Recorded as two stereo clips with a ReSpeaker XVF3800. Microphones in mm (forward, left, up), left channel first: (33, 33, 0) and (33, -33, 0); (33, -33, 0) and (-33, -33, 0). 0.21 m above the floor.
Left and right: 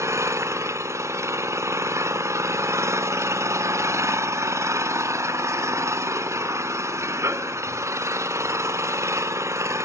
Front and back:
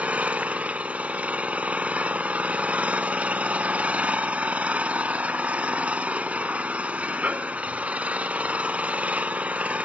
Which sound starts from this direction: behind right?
An engine running, at 0.0 s.